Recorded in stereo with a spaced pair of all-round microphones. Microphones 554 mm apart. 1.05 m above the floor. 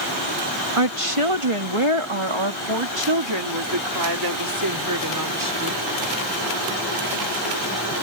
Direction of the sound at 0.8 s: 75° right (ahead or behind).